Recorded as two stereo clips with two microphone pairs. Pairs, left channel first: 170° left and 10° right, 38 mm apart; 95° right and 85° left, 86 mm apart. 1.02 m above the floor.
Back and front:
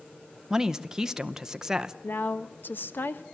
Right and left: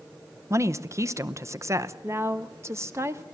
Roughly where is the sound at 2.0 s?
Behind left.